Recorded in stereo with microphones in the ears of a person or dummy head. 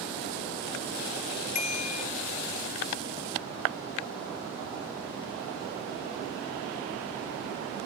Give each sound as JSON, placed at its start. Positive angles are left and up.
{"t": 1.6, "sound": "a bicycle bell", "side_deg": 45}